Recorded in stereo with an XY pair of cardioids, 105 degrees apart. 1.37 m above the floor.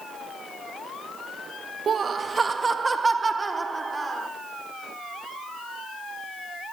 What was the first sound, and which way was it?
Laughter, 45° right.